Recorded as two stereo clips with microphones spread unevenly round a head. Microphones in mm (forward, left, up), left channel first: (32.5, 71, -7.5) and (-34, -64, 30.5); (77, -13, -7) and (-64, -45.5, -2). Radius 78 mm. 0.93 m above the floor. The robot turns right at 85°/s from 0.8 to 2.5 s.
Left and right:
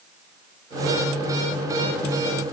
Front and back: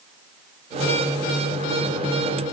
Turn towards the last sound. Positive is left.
No sound to turn to.